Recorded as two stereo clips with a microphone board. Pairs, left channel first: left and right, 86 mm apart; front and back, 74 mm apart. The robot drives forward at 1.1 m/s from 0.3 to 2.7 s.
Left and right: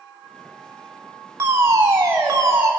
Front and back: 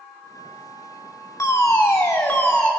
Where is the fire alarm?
35° right, 3.5 m; by 2.7 s 55° right, 2.5 m.